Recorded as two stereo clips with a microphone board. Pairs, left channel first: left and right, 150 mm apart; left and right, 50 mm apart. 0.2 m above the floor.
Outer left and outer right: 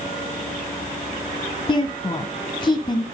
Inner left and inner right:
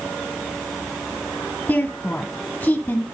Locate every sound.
1.7 s a woman speaking: 35° left (ahead or behind), 1.5 m